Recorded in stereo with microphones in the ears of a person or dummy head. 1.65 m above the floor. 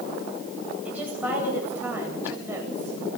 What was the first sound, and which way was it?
A woman speaking, 10° right (ahead or behind).